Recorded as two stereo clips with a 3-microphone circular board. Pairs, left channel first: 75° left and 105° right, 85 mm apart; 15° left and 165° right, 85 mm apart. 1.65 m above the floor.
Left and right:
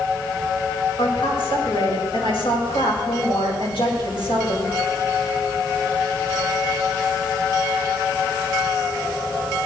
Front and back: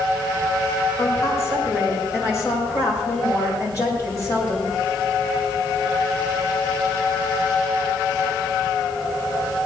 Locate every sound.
1.0 s a woman speaking: 70° left, 6 m